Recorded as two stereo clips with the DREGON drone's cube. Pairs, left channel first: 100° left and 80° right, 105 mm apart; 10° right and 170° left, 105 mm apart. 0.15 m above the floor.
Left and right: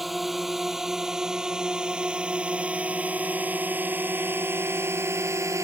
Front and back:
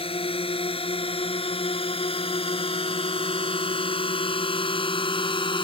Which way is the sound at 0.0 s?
10° left.